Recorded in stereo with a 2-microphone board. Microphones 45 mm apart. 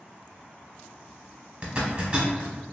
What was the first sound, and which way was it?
A zipper, 30° right (ahead or behind).